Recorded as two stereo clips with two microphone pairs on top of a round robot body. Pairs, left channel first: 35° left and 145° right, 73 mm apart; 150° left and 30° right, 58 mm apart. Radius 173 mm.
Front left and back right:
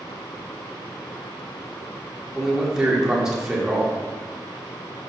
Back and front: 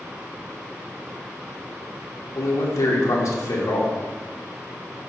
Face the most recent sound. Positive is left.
turn(degrees=140)